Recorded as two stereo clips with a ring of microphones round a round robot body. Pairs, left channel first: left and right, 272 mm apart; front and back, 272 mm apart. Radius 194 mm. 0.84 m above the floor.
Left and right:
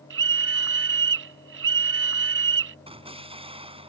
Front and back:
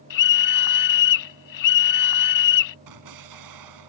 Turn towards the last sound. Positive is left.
turn(degrees=-160)